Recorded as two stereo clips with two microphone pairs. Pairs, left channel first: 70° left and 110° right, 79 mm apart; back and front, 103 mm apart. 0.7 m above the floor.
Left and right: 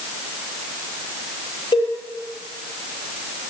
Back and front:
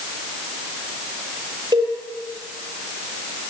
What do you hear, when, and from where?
1.7 s a cowbell: 55° left, 9 m